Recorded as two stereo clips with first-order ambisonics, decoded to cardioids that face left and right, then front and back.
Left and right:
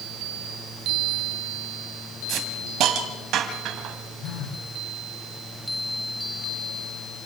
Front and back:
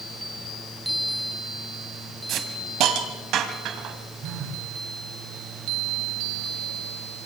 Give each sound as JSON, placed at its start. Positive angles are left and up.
{"t": 2.3, "sound": "a hiss", "azimuth_deg": -135, "distance_m": 2.0}
{"t": 4.2, "sound": "a phone buzzing", "azimuth_deg": 130, "distance_m": 3.0}